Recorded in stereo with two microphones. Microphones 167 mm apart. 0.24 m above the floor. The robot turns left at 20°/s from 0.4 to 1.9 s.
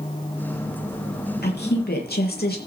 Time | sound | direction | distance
1.4 | a woman speaking | 75° left (ahead or behind) | 6.5 m